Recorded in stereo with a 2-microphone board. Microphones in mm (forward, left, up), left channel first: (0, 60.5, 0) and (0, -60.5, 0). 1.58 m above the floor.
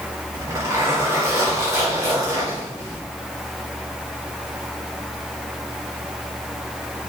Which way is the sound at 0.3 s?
30° right (ahead or behind).